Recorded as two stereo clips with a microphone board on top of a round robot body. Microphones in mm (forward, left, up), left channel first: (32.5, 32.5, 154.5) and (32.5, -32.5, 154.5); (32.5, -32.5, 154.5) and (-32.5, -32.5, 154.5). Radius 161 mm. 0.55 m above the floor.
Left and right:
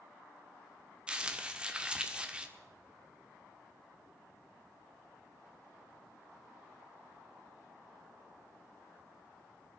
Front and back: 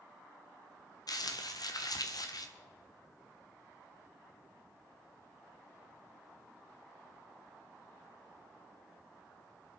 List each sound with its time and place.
1.1 s crumpling: 15° right, 1.3 m